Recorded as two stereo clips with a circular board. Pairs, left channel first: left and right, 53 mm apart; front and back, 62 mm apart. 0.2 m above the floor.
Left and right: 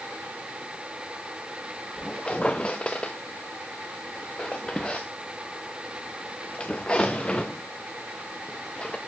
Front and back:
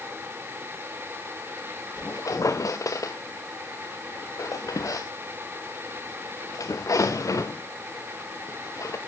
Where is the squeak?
20° left, 0.8 m.